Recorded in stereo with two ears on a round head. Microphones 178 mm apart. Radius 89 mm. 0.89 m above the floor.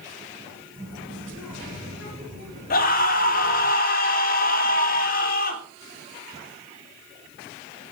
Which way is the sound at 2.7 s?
45° left (ahead or behind).